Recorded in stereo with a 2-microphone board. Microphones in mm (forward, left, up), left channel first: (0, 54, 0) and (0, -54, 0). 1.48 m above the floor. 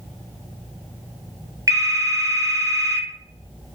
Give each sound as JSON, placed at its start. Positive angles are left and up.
{"t": 1.7, "sound": "a phone ringing", "side_deg": -35, "distance_m": 0.6}